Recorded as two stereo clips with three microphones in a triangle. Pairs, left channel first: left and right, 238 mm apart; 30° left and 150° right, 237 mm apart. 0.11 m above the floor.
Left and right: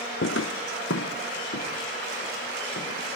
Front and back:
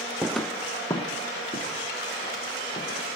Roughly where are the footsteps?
Behind left.